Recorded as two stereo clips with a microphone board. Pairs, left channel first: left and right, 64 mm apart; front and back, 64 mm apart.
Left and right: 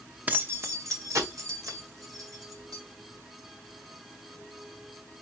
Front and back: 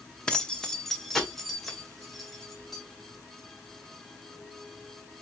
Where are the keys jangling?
60° right, 0.7 m; by 2.8 s 90° right, 2.5 m.